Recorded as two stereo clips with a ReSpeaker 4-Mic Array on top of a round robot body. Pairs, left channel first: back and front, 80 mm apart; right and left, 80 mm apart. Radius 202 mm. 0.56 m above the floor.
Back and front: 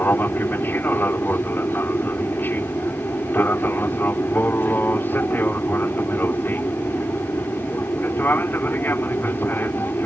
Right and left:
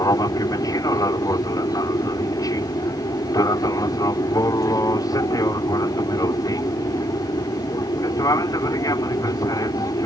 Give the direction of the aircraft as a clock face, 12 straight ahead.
4 o'clock.